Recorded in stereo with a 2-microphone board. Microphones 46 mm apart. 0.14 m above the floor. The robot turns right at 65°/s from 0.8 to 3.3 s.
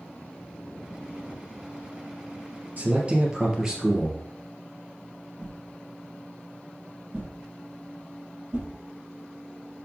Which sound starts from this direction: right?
A whoosh, at 5.4 s.